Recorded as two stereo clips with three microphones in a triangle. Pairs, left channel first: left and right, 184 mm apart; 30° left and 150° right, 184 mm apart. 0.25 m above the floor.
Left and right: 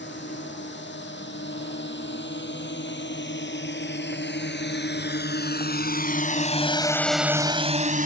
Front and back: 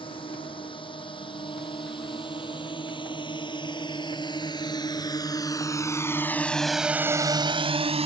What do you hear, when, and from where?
0.0 s a drone: 90° left; by 8.1 s 105° right